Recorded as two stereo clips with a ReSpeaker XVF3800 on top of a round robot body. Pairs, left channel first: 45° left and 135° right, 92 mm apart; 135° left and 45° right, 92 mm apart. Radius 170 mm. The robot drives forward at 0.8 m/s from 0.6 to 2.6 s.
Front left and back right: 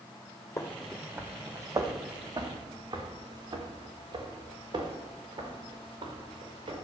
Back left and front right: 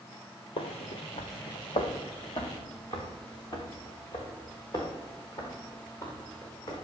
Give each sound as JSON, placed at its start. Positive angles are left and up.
{"t": 0.6, "sound": "footsteps", "azimuth_deg": 105, "distance_m": 0.7}